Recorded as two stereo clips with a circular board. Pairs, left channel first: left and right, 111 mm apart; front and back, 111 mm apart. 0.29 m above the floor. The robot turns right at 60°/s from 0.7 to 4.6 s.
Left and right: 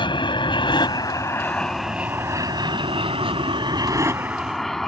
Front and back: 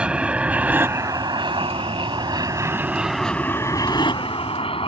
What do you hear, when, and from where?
0.0 s an aircraft: 100° left; by 4.9 s 5° left